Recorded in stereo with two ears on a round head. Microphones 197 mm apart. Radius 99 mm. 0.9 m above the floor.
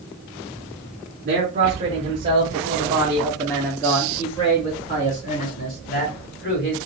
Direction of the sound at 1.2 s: 40° right (ahead or behind).